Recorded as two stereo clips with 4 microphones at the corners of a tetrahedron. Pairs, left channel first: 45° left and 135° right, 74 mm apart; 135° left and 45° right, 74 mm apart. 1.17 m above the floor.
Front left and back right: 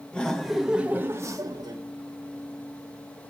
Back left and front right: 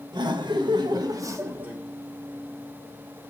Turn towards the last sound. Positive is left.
turn(degrees=-115)